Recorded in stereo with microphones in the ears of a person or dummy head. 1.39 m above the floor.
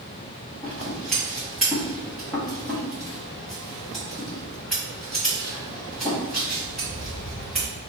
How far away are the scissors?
About 1.3 m.